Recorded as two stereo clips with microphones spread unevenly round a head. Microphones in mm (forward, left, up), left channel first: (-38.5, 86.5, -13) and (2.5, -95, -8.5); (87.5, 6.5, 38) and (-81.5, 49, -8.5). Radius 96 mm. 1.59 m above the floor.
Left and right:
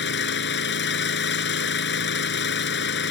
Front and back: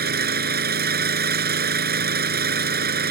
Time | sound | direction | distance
0.0 | an engine running | 130° left | ?